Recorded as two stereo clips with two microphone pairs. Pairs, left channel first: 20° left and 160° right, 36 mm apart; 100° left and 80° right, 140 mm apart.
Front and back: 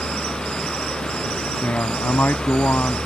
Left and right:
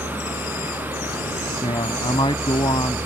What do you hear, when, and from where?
0.0 s a vehicle: 155° left
1.6 s a man speaking: 45° left